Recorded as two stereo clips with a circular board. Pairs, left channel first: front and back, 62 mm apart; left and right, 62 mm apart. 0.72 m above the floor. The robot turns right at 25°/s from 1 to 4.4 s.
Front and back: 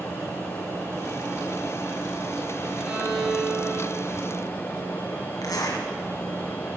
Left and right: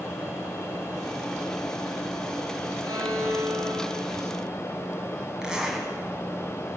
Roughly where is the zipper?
Ahead.